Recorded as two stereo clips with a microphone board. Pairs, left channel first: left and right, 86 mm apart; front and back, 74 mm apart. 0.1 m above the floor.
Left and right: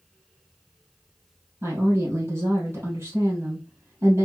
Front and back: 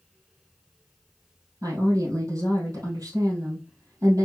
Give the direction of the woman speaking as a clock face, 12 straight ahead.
5 o'clock.